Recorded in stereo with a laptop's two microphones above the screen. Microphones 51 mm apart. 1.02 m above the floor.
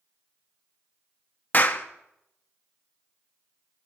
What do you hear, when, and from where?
1.5 s a clap: 35° left (ahead or behind), 0.6 m